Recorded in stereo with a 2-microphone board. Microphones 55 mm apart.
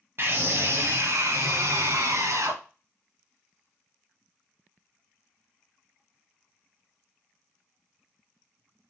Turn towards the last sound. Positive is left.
turn(degrees=-70)  # may be behind; listen again after turning